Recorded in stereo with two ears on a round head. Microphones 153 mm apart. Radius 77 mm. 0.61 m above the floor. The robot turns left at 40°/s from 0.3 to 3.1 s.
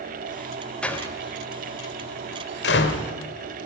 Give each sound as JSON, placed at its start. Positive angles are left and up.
{"t": 0.8, "sound": "a door slam", "side_deg": 5, "distance_m": 1.8}